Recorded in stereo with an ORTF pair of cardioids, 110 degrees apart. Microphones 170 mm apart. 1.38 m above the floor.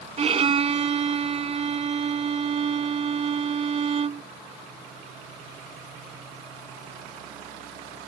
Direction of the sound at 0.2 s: 40° right.